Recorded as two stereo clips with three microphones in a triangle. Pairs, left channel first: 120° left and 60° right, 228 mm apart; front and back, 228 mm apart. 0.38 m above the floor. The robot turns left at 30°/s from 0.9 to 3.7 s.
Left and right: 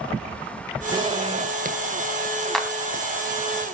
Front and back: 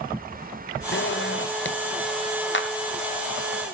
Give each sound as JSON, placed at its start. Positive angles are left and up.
{"t": 0.9, "sound": "a zipper", "azimuth_deg": 5, "distance_m": 1.1}
{"t": 2.5, "sound": "a clap", "azimuth_deg": 30, "distance_m": 2.5}